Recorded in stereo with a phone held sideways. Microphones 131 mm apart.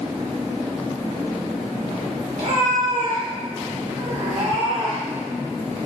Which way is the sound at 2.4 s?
75° right (ahead or behind).